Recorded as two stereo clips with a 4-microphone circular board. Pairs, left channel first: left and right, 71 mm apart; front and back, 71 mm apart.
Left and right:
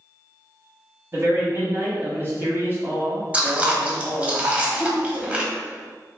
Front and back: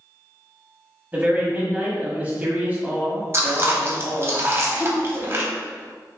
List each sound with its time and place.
1.1 s a man speaking: 125° right, 1.3 m
3.3 s chewing: 150° right, 0.7 m
4.7 s laughter: 15° left, 1.4 m